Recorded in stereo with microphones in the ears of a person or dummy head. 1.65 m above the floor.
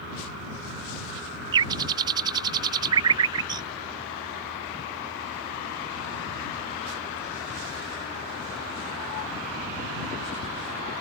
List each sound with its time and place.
1.5 s a bird: 25° right (ahead or behind)